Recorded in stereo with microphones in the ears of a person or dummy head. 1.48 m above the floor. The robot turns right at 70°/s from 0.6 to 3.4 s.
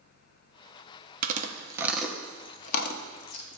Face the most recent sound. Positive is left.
turn(degrees=75)  # may be behind; listen again after turning